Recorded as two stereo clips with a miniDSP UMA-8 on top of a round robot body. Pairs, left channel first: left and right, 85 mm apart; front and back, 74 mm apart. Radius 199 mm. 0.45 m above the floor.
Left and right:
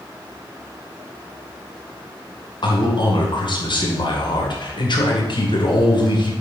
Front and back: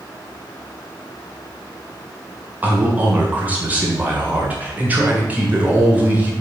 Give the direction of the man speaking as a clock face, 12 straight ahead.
8 o'clock.